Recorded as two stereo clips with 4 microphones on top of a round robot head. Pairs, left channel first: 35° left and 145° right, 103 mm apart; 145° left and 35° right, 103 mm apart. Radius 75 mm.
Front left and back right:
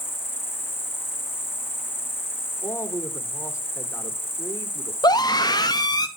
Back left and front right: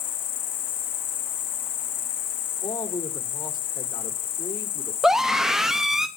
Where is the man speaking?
95° left, 2 m.